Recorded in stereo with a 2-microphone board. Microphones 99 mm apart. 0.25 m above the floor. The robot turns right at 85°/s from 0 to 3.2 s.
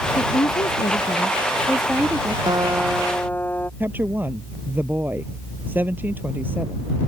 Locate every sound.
0.2 s a woman speaking: 40° left; by 2.4 s 130° right
2.5 s a guitar: 45° right; by 3.7 s 20° left
3.8 s a woman speaking: 20° right (ahead or behind)